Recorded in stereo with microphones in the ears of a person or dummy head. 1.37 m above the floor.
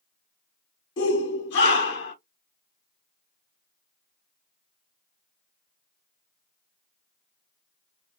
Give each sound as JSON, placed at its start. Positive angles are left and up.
{"t": 1.0, "sound": "a shout", "side_deg": 60, "distance_m": 0.8}